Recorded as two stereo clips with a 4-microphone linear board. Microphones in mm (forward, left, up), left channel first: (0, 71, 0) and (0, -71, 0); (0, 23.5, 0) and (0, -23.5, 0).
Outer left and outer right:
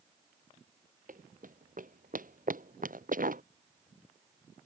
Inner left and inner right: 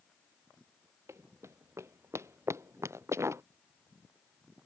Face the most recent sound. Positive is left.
turn(degrees=-75)  # may be behind; listen again after turning